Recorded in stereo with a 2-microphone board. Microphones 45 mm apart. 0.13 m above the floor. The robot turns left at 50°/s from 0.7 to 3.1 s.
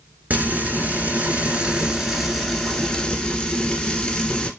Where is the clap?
No clap in this recording.